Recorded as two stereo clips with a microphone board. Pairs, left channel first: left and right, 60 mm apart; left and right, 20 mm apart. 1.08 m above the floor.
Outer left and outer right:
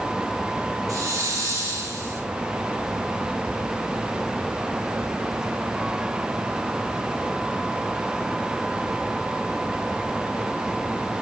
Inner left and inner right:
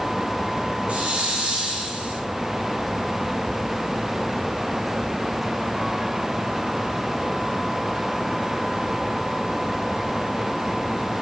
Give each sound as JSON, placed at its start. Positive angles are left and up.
{"t": 0.9, "sound": "a hiss", "side_deg": -70, "distance_m": 4.0}